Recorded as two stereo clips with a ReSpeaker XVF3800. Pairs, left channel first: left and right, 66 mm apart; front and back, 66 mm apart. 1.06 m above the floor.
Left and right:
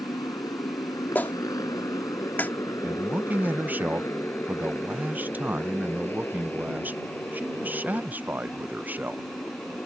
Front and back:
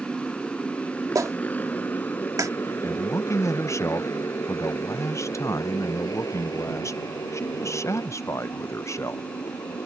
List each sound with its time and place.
0.0 s a motorcycle: 80° left; by 9.9 s 20° left
1.1 s a clap: 150° left
2.8 s a man speaking: 30° right